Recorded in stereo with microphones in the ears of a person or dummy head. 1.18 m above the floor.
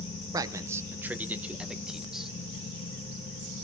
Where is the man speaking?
20° right (ahead or behind), 0.8 m; by 2.3 s 5° right (ahead or behind), 1.7 m.